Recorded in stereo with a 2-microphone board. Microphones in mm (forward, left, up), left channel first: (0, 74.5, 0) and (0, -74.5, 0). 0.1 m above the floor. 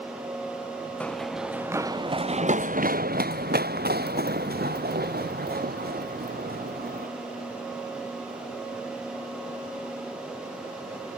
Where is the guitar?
I don't hear a guitar.